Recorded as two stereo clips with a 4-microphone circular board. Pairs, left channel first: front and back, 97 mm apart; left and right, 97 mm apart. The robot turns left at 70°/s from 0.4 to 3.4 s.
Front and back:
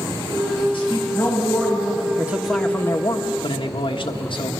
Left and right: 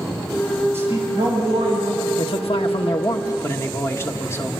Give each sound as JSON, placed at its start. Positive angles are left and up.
{"t": 0.7, "sound": "a man speaking", "azimuth_deg": -25, "distance_m": 8.0}
{"t": 2.2, "sound": "a man speaking", "azimuth_deg": 115, "distance_m": 1.3}